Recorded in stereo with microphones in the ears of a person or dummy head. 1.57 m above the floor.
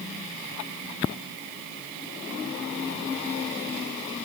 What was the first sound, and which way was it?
Only background noise.